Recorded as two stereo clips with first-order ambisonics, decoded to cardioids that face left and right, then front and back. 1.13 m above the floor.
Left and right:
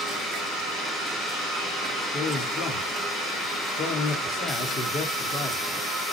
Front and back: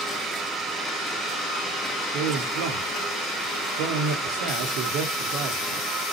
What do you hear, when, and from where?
2.1 s a man speaking: 150° left, 2 m